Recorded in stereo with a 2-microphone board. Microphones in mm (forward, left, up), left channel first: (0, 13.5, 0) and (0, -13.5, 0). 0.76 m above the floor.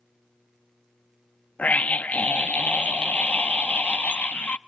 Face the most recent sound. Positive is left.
turn(degrees=55)  # may be behind; listen again after turning